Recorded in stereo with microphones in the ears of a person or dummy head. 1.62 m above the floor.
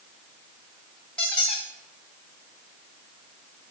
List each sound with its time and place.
1.2 s a squeak: 5° left (ahead or behind), 1.9 m